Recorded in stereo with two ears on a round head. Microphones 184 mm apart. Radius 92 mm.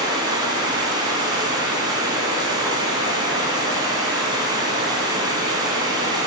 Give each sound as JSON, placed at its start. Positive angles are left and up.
{"t": 0.0, "sound": "running water", "side_deg": -20, "distance_m": 3.0}